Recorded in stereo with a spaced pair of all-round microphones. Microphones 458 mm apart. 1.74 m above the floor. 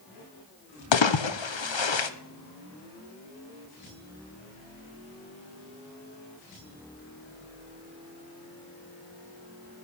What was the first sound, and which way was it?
A splash, 75° left (ahead or behind).